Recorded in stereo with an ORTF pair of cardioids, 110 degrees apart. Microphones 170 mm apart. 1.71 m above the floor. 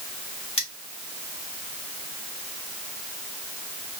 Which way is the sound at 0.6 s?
35° left.